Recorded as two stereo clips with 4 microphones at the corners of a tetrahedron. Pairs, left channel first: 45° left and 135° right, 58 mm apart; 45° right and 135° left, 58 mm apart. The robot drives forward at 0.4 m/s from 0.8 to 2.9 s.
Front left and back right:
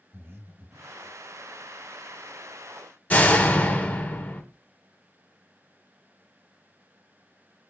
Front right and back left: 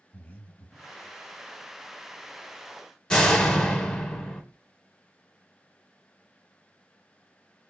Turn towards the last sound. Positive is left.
turn(degrees=15)